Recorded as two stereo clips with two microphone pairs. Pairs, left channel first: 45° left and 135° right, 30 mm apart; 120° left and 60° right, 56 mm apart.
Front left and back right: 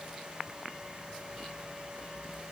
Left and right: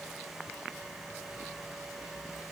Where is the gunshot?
No gunshot in this recording.